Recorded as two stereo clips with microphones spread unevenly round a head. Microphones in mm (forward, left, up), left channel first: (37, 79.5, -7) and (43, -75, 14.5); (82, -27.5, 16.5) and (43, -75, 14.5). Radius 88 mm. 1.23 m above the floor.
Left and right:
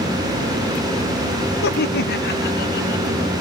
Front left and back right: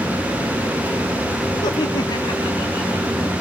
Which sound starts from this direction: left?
Laughter, at 1.6 s.